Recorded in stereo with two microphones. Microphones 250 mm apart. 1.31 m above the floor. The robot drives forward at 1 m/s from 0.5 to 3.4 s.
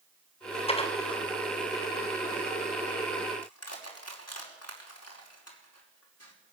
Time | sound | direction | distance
0.7 | dishes clattering | 25° left (ahead or behind) | 3 m
3.4 | crushing | 75° left (ahead or behind) | 5 m